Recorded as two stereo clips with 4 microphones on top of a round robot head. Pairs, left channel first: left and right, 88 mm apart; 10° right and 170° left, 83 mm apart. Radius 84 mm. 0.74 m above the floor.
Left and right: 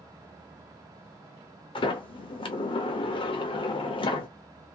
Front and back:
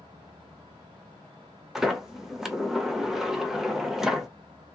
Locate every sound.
1.8 s a sliding door: 85° left, 0.7 m